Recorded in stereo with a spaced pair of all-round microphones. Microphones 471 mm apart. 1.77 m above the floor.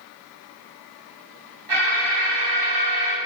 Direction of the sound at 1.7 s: 65° right (ahead or behind).